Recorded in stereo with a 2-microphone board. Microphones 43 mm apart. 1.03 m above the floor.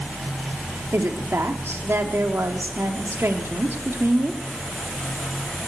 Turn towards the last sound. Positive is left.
turn(degrees=-80)